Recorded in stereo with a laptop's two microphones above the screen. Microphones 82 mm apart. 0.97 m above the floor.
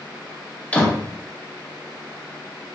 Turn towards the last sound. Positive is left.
turn(degrees=20)  # may be behind; listen again after turning